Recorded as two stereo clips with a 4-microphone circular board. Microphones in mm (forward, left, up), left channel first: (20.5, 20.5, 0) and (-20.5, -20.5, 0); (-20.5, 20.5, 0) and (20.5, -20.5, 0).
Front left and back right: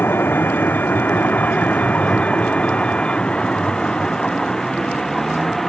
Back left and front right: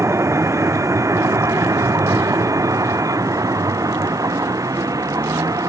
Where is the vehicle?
10° right; by 5.7 s 40° right.